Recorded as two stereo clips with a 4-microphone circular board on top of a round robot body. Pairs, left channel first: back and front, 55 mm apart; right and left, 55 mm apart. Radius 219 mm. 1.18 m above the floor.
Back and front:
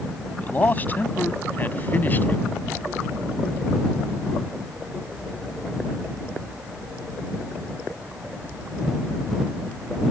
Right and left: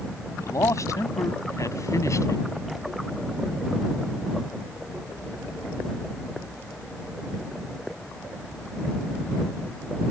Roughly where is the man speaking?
Behind right.